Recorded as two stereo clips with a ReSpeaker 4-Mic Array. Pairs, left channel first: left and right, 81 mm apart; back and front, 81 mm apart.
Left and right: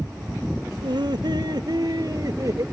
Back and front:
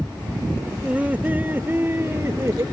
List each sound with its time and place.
0.8 s laughter: 75° right; by 2.6 s 50° right